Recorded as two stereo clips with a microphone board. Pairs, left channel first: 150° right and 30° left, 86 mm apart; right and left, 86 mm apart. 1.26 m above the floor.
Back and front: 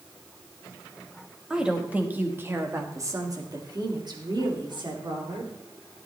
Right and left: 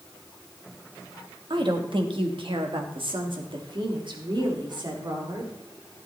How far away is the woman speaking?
About 1.6 m.